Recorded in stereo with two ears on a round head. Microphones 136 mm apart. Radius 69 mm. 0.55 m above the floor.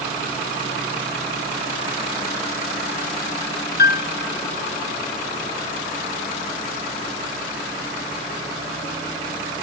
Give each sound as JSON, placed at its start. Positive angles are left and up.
{"t": 3.8, "sound": "a piano", "side_deg": 65, "distance_m": 0.9}